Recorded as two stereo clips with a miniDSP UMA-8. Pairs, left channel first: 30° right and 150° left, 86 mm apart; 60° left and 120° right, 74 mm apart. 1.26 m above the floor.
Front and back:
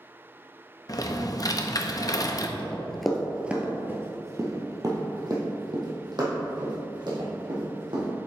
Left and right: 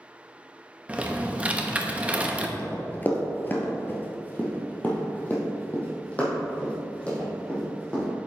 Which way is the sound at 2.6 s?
25° left.